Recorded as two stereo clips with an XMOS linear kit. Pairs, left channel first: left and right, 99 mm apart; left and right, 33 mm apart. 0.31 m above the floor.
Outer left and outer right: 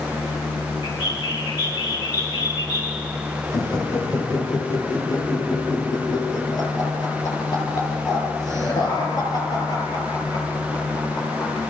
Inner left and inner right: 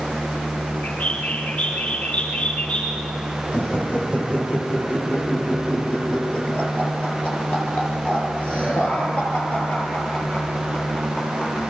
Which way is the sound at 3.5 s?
40° left (ahead or behind).